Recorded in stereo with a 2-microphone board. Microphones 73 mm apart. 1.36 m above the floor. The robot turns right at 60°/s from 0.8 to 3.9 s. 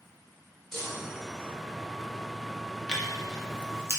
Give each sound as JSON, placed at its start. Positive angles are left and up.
{"t": 0.7, "sound": "a chime", "azimuth_deg": 5, "distance_m": 1.1}
{"t": 2.9, "sound": "tearing paper", "side_deg": 10, "distance_m": 0.6}